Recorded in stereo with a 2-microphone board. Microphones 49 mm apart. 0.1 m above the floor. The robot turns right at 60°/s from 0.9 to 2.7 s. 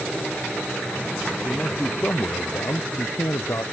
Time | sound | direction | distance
1.4 | a man speaking | 15° left | ?